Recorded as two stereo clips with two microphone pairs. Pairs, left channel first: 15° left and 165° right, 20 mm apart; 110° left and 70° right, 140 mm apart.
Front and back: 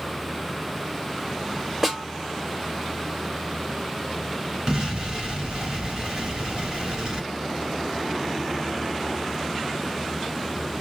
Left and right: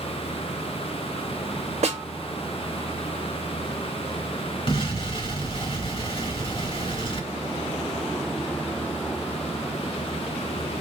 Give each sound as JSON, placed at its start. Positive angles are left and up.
{"t": 1.8, "sound": "a snare drum", "azimuth_deg": -90, "distance_m": 1.9}
{"t": 4.7, "sound": "an explosion", "azimuth_deg": 155, "distance_m": 2.5}